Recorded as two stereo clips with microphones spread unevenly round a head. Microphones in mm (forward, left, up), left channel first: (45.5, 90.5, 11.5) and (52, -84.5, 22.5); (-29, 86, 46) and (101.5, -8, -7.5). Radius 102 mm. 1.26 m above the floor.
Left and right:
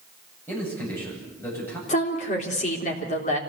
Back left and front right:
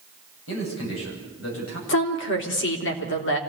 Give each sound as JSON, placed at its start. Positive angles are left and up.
{"t": 0.5, "sound": "a man speaking", "azimuth_deg": 175, "distance_m": 9.0}
{"t": 1.9, "sound": "a woman speaking", "azimuth_deg": 150, "distance_m": 3.5}